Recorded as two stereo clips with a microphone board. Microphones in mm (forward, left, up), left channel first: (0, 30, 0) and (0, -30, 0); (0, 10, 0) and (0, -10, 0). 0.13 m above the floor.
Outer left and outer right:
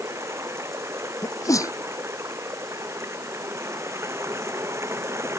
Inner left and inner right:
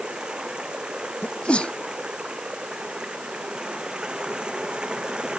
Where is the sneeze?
65° left (ahead or behind).